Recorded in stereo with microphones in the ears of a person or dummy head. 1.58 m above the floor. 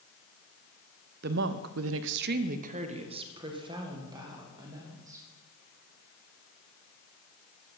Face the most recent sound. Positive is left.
turn(degrees=-20)  # may be behind; listen again after turning